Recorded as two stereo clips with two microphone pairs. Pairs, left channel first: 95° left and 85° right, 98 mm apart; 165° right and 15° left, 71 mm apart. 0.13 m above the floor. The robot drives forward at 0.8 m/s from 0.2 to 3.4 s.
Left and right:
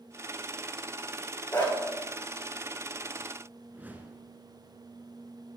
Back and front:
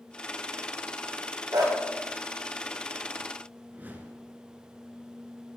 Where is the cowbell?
I don't hear a cowbell.